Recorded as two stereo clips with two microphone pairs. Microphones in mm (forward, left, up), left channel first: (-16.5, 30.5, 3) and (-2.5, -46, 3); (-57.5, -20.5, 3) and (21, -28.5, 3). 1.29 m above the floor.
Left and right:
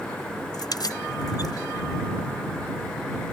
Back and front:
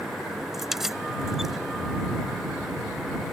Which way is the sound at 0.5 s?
80° left.